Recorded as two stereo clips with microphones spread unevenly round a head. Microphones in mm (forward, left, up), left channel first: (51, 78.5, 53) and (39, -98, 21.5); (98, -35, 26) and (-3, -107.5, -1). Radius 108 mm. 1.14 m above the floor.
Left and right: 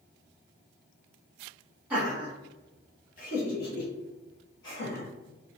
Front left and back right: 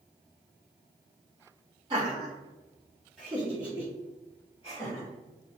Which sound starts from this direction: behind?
Laughter, at 1.9 s.